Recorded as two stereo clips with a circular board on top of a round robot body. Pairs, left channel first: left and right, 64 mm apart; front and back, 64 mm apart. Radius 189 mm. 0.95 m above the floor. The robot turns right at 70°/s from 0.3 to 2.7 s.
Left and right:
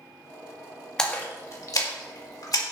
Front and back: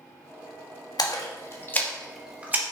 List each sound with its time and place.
1.0 s a splash: 10° left, 2 m; by 2.6 s 125° left, 2 m